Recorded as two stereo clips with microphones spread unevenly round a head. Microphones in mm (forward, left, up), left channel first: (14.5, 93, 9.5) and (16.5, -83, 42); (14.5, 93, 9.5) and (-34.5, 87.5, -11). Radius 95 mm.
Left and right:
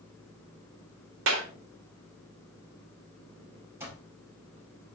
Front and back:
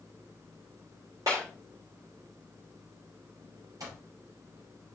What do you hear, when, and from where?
1.3 s a clap: 110° right, 3 m
3.8 s an alarm clock: 165° right, 5.5 m